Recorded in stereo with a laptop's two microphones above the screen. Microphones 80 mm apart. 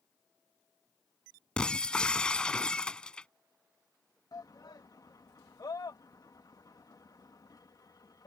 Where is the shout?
55° left (ahead or behind).